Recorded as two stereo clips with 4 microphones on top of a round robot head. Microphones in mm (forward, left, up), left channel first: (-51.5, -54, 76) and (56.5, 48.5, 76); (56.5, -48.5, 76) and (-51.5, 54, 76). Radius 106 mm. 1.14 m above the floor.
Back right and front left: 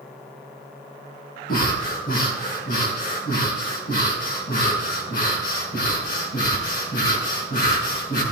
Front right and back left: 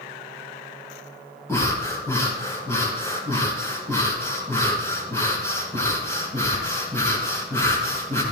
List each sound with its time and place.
1.5 s breathing: 115° right, 4.5 m